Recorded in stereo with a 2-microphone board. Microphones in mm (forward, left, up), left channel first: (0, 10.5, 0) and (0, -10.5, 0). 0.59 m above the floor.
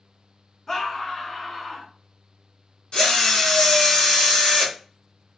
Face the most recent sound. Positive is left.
turn(degrees=55)  # may be behind; listen again after turning